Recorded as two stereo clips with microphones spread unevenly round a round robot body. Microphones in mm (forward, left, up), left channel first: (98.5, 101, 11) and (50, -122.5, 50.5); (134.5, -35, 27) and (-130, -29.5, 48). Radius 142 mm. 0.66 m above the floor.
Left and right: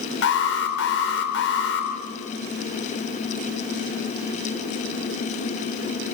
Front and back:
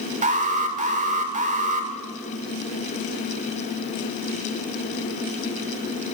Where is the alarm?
115° left, 2.5 m.